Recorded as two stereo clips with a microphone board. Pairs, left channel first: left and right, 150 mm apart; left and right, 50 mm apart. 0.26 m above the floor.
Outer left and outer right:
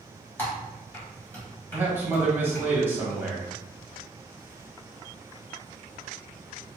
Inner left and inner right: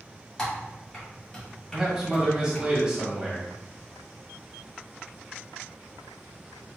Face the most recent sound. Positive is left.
turn(degrees=-15)  # may be behind; listen again after turning